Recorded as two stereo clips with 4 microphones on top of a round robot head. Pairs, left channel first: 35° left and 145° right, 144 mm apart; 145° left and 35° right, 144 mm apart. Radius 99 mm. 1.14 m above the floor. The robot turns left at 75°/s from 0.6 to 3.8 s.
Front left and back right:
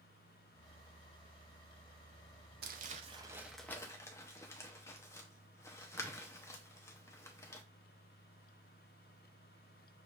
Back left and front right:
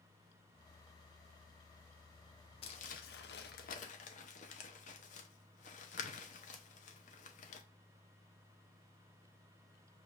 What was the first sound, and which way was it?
Crumpling, 165° right.